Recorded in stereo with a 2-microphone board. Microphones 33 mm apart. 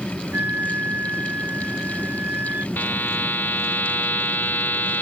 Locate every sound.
0.3 s a flute: 80° right
2.8 s a buzzer: 80° left